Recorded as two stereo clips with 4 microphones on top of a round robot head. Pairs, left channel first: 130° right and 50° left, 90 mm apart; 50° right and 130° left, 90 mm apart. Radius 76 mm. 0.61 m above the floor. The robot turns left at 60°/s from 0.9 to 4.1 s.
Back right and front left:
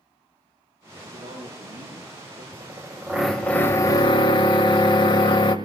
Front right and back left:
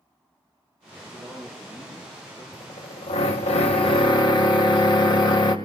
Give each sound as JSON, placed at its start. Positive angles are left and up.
{"t": 1.0, "sound": "a man speaking", "azimuth_deg": 105, "distance_m": 8.5}
{"t": 2.5, "sound": "a drill", "azimuth_deg": 5, "distance_m": 2.5}